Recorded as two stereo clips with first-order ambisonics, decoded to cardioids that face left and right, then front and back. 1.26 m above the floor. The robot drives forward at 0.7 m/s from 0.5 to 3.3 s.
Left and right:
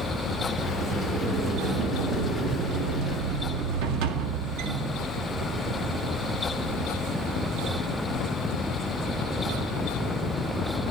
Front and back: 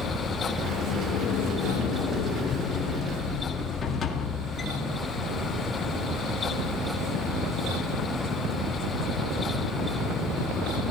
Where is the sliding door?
30° right, 3 m; by 5.1 s 65° right, 1.5 m.